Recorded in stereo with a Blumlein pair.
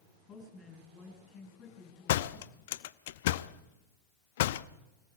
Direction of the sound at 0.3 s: 30° left.